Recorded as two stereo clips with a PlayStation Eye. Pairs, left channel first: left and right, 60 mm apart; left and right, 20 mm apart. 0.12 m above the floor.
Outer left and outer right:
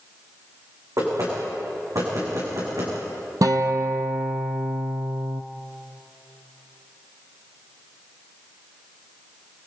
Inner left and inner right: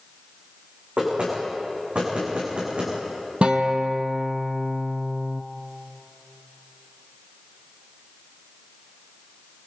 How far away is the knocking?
About 8 m.